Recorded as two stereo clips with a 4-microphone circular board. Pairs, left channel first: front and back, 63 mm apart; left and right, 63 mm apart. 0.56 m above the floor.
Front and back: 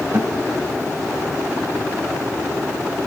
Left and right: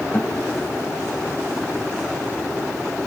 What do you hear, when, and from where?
0.1 s a guitar: 135° left, 2 m